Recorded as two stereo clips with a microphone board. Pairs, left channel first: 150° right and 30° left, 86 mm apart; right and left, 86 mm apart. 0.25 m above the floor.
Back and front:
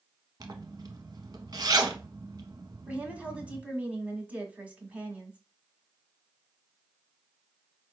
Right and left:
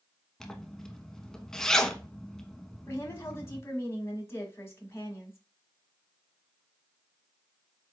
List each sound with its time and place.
0.4 s a zipper: 5° right, 0.7 m
2.9 s a woman speaking: 40° right, 1.4 m